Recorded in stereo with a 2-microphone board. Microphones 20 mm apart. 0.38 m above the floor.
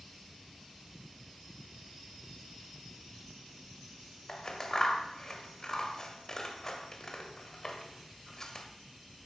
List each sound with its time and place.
4.3 s scissors: 30° left (ahead or behind), 1.5 m